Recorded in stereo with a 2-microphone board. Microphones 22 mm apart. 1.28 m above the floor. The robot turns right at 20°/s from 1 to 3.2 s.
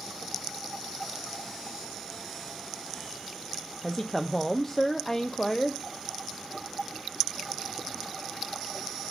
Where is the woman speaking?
15° left (ahead or behind), 0.6 m.